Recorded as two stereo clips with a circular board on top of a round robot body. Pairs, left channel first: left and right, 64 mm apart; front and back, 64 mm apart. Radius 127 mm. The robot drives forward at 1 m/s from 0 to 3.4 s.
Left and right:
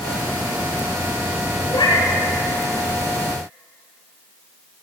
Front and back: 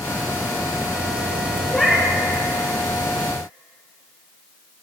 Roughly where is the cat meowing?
Left.